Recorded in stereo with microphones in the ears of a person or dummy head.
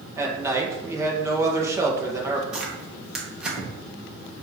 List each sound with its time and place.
0.2 s a man speaking: 10° right (ahead or behind), 1.8 m
2.5 s tearing paper: centre (ahead or behind), 1.6 m